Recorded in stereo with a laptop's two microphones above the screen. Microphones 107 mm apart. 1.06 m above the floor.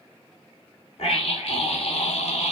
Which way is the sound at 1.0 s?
70° left (ahead or behind).